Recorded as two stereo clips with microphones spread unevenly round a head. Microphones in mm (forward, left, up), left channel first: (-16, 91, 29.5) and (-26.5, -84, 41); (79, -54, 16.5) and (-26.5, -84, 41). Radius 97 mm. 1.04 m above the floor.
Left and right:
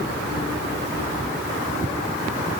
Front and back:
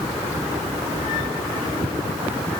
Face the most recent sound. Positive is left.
No sound to turn to.